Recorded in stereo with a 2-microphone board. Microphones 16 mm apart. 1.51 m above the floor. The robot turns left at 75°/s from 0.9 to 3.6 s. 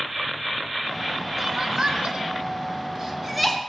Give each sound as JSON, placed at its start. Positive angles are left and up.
{"t": 1.4, "sound": "crying", "side_deg": -20, "distance_m": 1.3}